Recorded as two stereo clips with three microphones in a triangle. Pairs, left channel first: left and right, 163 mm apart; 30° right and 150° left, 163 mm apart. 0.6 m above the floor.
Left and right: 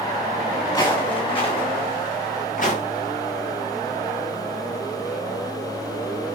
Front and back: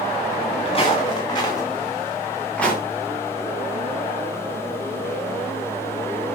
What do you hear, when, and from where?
0.7 s footsteps: 25° left, 4.5 m; by 2.8 s 55° left, 4.5 m